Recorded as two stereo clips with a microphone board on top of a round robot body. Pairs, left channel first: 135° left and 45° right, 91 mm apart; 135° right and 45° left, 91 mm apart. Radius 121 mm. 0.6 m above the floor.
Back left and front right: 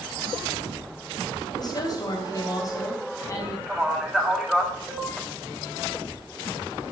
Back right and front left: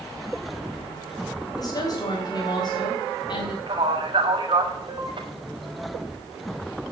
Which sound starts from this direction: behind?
A woman speaking, at 1.6 s.